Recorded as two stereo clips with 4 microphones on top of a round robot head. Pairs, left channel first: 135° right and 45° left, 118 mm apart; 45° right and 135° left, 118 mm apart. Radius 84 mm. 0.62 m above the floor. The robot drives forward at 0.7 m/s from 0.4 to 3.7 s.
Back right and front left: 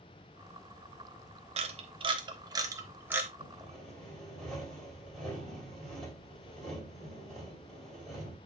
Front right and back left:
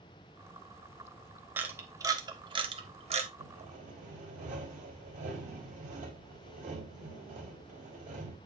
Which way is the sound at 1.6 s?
65° left.